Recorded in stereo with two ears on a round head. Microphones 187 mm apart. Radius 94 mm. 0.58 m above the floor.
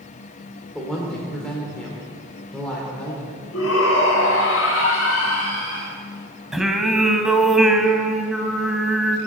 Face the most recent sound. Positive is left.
turn(degrees=0)  # may be behind; listen again after turning